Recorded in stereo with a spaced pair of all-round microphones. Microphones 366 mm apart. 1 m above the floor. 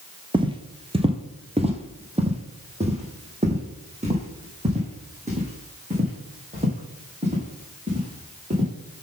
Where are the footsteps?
15° right (ahead or behind), 1.2 m; by 8.7 s 20° right (ahead or behind), 5.5 m.